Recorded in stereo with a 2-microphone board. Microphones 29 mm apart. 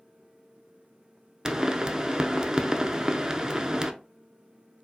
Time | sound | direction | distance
1.4 | a pop | 25° right (ahead or behind) | 0.5 m